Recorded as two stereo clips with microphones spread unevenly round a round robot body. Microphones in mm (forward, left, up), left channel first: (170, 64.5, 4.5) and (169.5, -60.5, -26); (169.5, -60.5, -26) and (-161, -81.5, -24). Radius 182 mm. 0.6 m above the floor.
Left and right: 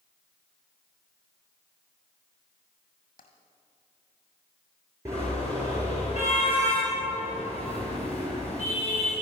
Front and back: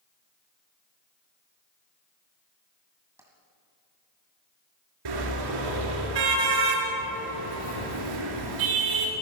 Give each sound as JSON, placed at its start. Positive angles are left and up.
{"t": 3.2, "sound": "tapping", "azimuth_deg": 100, "distance_m": 2.5}
{"t": 5.0, "sound": "a car horn", "azimuth_deg": -175, "distance_m": 4.5}